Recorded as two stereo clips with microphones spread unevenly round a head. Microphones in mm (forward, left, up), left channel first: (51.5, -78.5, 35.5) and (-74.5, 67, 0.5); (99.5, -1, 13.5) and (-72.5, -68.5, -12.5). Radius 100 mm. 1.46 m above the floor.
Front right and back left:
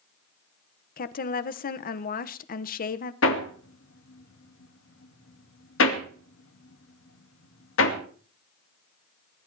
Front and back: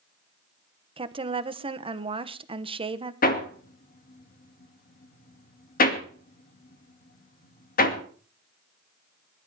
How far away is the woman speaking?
About 1.2 m.